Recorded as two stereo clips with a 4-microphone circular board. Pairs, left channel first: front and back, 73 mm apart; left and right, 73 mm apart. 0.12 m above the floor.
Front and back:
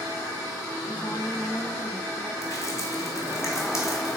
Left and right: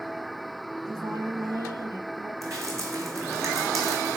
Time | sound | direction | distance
0.8 | a woman speaking | 60° right | 4 m
2.4 | dripping | 45° right | 2.5 m